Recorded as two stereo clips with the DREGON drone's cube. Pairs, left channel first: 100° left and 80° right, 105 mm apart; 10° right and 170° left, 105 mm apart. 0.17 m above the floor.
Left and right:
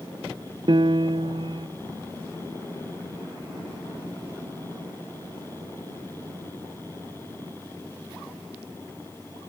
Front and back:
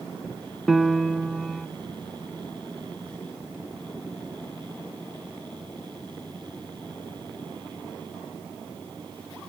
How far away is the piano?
About 0.5 m.